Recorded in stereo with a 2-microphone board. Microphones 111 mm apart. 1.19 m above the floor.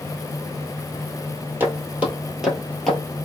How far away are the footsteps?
About 1.7 m.